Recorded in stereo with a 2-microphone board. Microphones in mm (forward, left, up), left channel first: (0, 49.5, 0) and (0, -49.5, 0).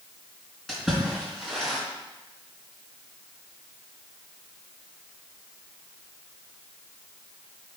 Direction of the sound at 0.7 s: 5° left (ahead or behind).